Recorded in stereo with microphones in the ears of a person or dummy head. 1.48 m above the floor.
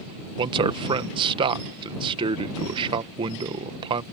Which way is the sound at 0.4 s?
25° right (ahead or behind).